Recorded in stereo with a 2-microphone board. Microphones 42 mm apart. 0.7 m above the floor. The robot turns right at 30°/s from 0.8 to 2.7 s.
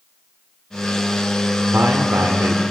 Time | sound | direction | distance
1.7 | a man speaking | 65° right (ahead or behind) | 1.5 m